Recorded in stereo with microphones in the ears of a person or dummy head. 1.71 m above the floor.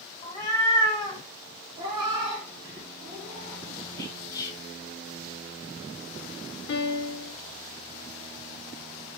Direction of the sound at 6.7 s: 65° left (ahead or behind).